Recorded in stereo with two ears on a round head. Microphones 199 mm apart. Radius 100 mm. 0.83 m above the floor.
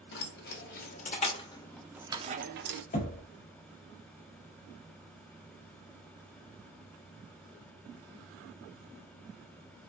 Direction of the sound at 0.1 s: 50° left (ahead or behind).